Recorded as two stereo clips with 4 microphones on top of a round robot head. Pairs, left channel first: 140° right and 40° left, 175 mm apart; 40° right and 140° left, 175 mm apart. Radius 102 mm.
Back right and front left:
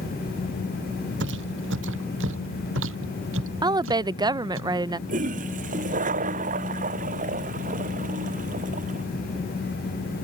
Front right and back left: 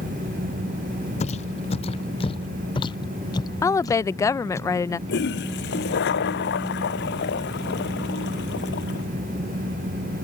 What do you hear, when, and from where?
1.2 s footsteps: 15° left; by 4.6 s 40° left
3.6 s a woman speaking: 10° left
5.1 s a toilet flushing: 10° right